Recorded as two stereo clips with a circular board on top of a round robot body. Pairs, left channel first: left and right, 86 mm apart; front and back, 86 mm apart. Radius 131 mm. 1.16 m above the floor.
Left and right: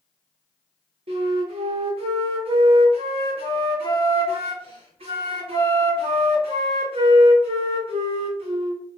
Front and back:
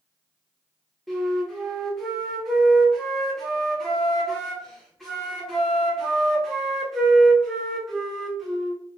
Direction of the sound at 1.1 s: 90° right.